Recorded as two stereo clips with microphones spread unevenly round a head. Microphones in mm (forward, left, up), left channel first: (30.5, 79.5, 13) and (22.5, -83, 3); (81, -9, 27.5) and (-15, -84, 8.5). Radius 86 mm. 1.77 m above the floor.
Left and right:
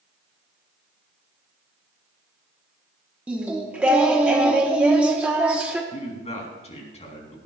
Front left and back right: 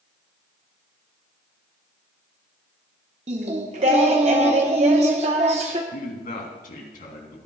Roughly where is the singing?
Behind.